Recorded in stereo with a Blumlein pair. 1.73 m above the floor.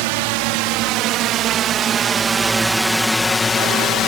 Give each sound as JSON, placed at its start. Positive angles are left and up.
{"t": 0.0, "sound": "a drone", "azimuth_deg": -45}